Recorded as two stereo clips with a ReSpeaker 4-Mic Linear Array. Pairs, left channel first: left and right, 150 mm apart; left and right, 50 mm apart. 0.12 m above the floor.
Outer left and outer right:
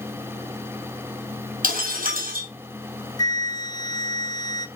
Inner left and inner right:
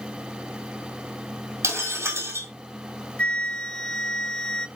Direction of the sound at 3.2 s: 30° left (ahead or behind).